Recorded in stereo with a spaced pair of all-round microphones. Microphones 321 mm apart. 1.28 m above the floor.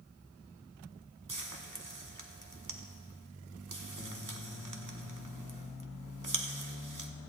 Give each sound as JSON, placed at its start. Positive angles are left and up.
{"t": 1.3, "sound": "frying", "side_deg": -70, "distance_m": 1.0}